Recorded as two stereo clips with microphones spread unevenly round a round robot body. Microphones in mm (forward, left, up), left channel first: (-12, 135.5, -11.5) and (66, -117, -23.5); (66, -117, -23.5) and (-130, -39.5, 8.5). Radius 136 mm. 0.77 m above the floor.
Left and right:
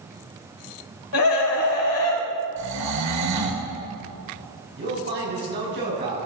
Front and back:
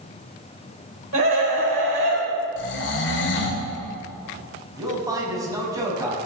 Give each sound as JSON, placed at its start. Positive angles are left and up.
{"t": 1.1, "sound": "a scream", "azimuth_deg": 110, "distance_m": 4.0}
{"t": 2.6, "sound": "snoring", "azimuth_deg": -45, "distance_m": 2.0}
{"t": 4.8, "sound": "a man speaking", "azimuth_deg": -130, "distance_m": 6.0}